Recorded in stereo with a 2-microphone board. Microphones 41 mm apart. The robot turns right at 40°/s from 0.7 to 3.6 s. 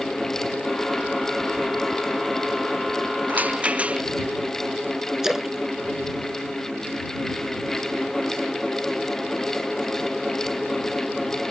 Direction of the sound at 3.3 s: 40° right (ahead or behind).